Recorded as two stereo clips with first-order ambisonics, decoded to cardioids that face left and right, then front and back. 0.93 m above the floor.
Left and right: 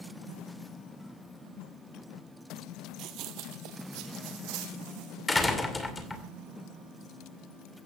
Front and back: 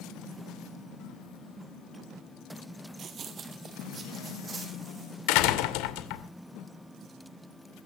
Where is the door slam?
10° left, 2.5 m.